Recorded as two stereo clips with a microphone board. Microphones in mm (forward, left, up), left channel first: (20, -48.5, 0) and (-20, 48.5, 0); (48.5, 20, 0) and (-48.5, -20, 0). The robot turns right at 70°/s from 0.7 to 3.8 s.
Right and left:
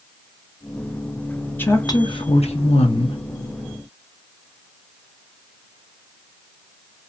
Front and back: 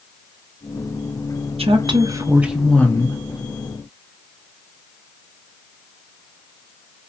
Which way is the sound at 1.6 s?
140° right.